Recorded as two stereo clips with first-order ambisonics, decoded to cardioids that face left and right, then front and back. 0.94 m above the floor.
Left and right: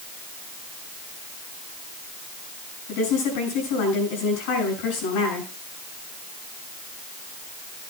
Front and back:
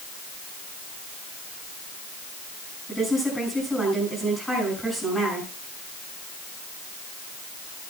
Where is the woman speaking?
85° left, 7 m.